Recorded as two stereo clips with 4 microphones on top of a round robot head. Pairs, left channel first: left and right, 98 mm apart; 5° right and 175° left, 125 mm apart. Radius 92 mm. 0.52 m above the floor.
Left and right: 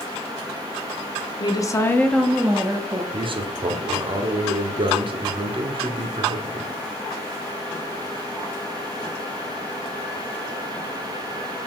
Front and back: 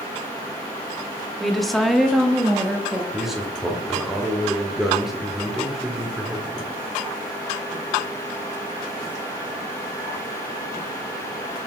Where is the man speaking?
95° right, 1.5 m.